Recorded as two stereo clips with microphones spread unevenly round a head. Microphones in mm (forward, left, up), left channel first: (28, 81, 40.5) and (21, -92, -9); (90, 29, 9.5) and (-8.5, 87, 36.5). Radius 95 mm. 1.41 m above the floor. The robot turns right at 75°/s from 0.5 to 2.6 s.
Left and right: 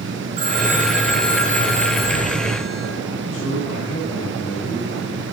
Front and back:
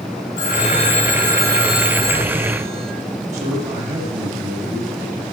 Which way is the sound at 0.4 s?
30° right.